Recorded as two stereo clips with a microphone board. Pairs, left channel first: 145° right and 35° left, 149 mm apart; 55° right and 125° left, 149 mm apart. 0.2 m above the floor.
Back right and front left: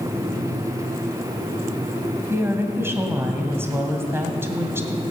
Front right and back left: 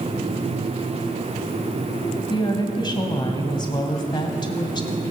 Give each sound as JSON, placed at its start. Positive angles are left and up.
{"t": 2.3, "sound": "a woman speaking", "azimuth_deg": -30, "distance_m": 1.8}